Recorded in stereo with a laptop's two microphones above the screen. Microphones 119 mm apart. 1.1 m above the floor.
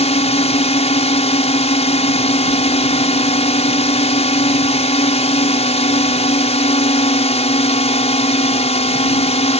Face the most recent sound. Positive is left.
turn(degrees=65)  # may be behind; listen again after turning